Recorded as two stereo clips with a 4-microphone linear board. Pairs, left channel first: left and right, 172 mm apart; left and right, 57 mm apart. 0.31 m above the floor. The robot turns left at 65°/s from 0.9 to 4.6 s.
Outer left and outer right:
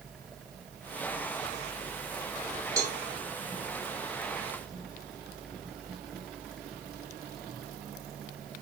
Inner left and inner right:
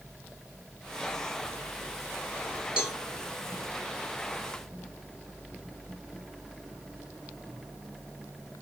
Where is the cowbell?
20° right (ahead or behind), 1.1 m; by 3.0 s 15° right (ahead or behind), 1.1 m.